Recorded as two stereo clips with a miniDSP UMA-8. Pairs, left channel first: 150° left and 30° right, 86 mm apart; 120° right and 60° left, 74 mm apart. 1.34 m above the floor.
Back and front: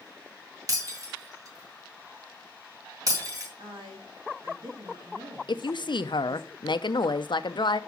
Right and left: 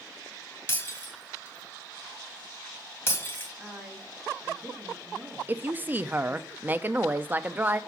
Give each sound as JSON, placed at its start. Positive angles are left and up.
{"t": 0.7, "sound": "breaking glass", "azimuth_deg": -65, "distance_m": 2.0}
{"t": 3.6, "sound": "a woman speaking", "azimuth_deg": -20, "distance_m": 2.5}
{"t": 5.5, "sound": "a woman speaking", "azimuth_deg": 125, "distance_m": 0.6}